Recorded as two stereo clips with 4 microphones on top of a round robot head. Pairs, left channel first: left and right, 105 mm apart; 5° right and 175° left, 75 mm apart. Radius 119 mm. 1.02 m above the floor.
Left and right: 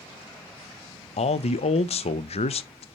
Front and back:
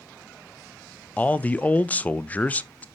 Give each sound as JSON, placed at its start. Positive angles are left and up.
{"t": 1.2, "sound": "a man speaking", "azimuth_deg": 70, "distance_m": 0.6}